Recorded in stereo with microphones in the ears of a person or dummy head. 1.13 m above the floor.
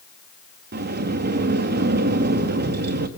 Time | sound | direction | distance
0.7 | a sliding door | 55° right (ahead or behind) | 1.5 m